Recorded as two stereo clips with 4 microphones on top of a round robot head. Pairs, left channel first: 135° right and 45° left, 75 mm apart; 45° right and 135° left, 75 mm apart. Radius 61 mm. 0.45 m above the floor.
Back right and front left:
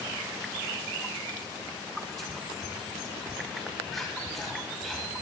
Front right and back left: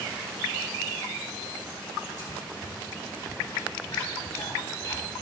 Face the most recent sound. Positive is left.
turn(degrees=-45)